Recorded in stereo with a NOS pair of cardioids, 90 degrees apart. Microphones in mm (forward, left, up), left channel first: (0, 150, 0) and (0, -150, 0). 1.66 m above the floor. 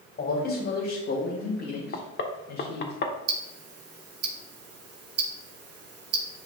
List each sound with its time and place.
0.2 s a man speaking: 35° left, 2.5 m; by 2.9 s 75° left, 1.8 m
1.9 s knocking: 40° left, 1.2 m
3.3 s ticking: 55° right, 1.3 m